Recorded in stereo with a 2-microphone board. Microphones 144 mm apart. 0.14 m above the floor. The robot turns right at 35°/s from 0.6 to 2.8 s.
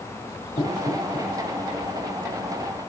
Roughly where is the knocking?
Left.